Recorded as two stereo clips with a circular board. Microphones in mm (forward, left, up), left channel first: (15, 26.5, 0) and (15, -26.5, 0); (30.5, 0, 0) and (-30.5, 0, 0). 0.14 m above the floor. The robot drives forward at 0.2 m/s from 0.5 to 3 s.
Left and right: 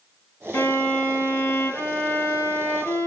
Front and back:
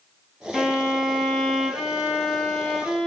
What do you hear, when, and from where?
0.5 s a violin: 95° left, 2.5 m; by 3.1 s 110° left, 2.5 m